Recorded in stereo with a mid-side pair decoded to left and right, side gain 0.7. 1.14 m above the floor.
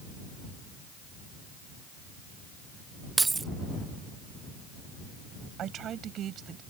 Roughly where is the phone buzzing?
No phone buzzing in this recording.